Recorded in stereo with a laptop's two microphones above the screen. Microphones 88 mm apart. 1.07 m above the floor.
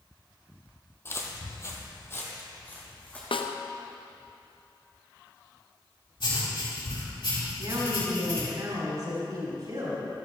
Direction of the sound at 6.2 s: 75° left (ahead or behind).